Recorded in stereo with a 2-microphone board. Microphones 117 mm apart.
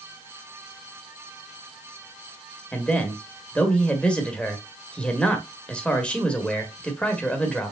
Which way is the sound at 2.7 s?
10° left (ahead or behind).